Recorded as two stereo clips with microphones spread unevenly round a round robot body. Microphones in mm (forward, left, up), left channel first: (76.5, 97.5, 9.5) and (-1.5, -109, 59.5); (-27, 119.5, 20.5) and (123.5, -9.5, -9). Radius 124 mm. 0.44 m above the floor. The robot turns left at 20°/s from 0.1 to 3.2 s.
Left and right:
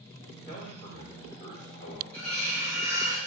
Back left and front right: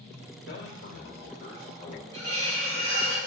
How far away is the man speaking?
About 2.5 m.